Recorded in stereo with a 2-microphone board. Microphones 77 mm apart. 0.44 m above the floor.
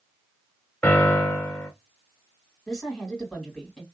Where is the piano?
15° left (ahead or behind), 0.9 m.